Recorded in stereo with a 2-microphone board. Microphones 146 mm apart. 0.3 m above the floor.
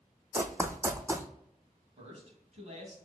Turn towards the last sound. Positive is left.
turn(degrees=-50)  # may be behind; listen again after turning